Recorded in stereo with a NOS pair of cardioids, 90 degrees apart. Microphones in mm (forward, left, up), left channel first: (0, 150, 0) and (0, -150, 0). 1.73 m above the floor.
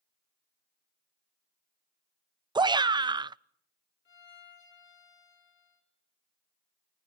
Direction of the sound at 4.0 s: 40° left.